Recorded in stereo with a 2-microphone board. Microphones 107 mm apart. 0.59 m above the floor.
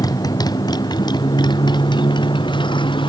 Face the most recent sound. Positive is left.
turn(degrees=50)  # may be behind; listen again after turning